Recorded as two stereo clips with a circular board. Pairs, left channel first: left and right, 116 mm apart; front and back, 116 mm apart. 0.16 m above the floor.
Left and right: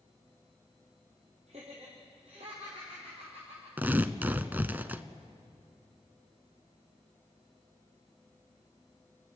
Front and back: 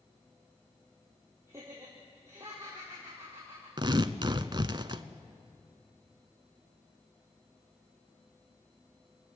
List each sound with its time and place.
1.5 s laughter: 110° right, 5 m
3.8 s tearing paper: 160° right, 0.8 m